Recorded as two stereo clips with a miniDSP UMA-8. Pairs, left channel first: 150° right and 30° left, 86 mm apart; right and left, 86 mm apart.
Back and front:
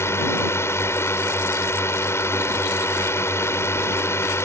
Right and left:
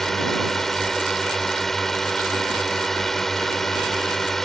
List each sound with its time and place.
0.0 s a drone: 175° right